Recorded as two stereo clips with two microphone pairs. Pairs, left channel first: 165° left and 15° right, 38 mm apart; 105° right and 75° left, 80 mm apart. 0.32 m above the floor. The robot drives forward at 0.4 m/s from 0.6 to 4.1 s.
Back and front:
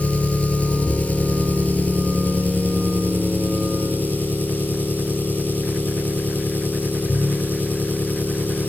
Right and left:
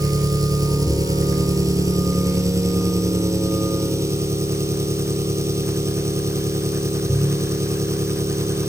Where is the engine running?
110° left, 4 m; by 8.7 s 125° left, 4.5 m.